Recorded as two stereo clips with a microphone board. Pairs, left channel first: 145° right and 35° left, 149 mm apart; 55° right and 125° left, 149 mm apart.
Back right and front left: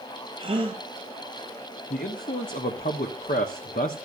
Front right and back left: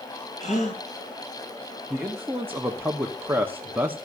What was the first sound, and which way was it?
A gasp, 20° right.